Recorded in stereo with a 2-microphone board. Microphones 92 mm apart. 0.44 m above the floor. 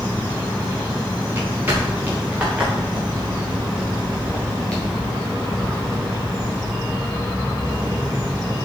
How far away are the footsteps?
About 4 m.